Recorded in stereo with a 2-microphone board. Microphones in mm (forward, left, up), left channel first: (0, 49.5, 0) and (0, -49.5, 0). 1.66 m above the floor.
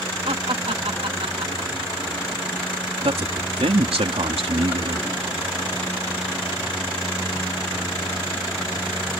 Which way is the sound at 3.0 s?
85° right.